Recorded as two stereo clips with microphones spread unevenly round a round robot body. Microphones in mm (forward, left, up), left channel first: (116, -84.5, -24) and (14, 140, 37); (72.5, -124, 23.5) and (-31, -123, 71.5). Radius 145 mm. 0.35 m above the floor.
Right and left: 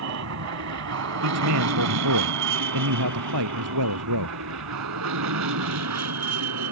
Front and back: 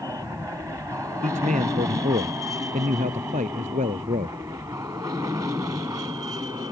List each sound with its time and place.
0.0 s an aircraft: 100° left; by 6.7 s 105° left
1.2 s a man speaking: 140° left